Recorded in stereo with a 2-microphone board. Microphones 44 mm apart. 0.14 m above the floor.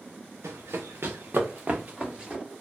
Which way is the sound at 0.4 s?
85° right.